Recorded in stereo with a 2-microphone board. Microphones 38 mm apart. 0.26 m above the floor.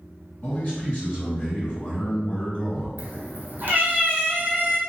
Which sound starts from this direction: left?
A man speaking, at 0.4 s.